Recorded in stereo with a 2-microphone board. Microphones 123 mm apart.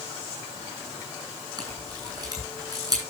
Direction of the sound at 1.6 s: 35° right (ahead or behind).